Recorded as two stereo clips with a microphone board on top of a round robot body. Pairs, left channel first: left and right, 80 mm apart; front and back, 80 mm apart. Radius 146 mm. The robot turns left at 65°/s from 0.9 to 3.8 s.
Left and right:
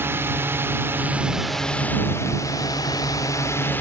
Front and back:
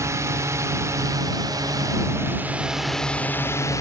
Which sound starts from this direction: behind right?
A drone, at 0.0 s.